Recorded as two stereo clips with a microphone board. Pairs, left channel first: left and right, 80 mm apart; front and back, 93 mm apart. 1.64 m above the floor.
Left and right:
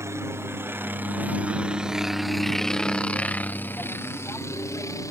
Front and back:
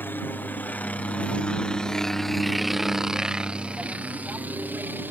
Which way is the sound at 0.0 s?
60° right.